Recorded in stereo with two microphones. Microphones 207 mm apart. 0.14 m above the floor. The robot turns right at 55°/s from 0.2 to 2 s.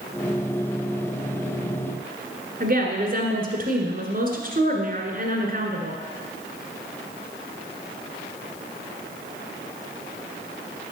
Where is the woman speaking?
45° right (ahead or behind), 1.6 m.